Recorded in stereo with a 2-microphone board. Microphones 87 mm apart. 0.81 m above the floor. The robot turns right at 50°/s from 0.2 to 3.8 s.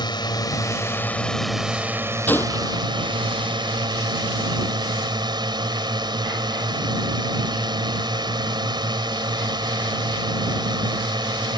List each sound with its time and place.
0.0 s a drone: 115° left; by 11.6 s 65° right
2.3 s a gunshot: 20° left (ahead or behind); by 2.8 s 45° left (ahead or behind)